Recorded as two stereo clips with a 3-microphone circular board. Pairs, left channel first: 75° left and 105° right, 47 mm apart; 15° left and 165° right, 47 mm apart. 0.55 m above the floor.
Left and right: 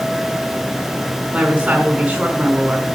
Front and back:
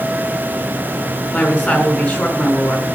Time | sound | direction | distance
1.3 | a woman speaking | 35° right | 4.5 m